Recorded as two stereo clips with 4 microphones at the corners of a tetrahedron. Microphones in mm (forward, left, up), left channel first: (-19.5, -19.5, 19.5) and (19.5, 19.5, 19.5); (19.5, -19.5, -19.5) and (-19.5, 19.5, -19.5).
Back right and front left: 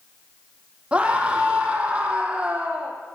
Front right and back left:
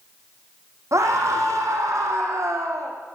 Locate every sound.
0.9 s a scream: 115° left, 5.5 m